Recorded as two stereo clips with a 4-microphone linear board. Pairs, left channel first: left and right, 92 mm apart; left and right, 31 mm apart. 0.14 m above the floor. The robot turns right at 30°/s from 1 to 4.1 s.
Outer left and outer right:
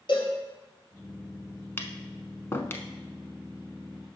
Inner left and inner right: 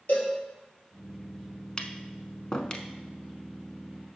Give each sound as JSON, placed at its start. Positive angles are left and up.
{"t": 0.1, "sound": "a cowbell", "side_deg": 60, "distance_m": 3.0}
{"t": 1.8, "sound": "tapping", "side_deg": 25, "distance_m": 0.7}